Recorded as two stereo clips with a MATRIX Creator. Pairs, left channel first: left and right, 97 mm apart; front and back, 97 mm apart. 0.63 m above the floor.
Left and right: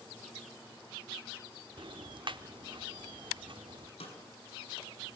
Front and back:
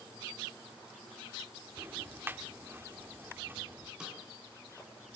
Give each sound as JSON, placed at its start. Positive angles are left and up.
{"t": 1.8, "sound": "ticking", "azimuth_deg": -115, "distance_m": 1.1}
{"t": 4.0, "sound": "a snare drum", "azimuth_deg": 100, "distance_m": 7.0}